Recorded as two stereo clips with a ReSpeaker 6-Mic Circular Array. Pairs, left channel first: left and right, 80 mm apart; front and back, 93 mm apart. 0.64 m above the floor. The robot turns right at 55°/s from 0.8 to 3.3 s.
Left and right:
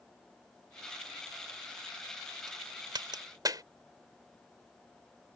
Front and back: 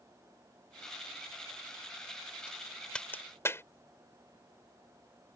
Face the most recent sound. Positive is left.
turn(degrees=-60)